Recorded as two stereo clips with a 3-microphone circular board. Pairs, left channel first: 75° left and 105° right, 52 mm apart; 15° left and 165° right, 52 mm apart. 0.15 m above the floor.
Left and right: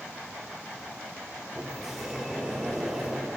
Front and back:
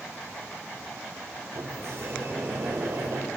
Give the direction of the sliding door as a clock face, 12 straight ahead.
6 o'clock.